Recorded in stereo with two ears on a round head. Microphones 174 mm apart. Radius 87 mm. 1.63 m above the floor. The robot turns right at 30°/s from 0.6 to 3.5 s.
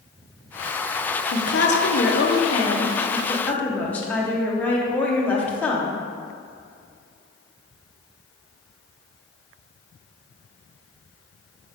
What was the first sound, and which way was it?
A woman speaking, 105° left.